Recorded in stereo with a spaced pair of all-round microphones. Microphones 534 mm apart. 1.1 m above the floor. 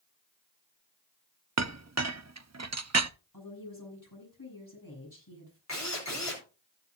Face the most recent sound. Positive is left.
turn(degrees=30)  # may be behind; listen again after turning